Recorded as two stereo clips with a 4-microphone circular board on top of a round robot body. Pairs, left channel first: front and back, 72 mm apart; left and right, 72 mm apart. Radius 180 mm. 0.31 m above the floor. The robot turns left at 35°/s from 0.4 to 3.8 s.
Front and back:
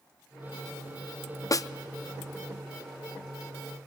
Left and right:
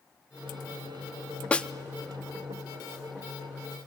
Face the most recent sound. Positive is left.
turn(degrees=-60)